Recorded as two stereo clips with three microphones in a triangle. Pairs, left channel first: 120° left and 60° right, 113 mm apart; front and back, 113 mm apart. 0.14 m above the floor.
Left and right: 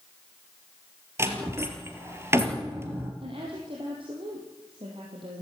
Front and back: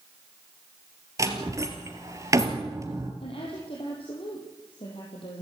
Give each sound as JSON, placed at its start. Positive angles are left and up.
{"t": 1.2, "sound": "a door slam", "azimuth_deg": -125, "distance_m": 3.0}
{"t": 3.2, "sound": "a woman speaking", "azimuth_deg": -25, "distance_m": 4.5}